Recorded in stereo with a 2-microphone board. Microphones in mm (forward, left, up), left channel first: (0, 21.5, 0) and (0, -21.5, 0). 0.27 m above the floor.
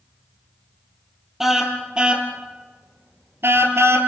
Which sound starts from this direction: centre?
A car horn, at 1.4 s.